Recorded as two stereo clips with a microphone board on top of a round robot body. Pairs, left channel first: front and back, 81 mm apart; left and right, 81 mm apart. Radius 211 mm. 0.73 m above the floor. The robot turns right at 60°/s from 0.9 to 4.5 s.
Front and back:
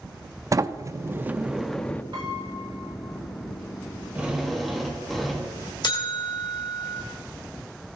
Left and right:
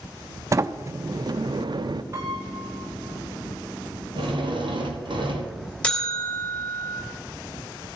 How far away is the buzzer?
About 2.5 m.